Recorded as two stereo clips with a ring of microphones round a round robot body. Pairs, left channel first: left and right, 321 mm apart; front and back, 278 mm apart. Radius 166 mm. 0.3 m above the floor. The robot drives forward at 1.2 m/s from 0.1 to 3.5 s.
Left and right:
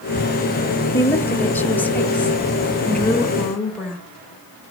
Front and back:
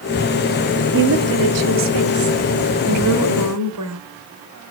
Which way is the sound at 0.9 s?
170° left.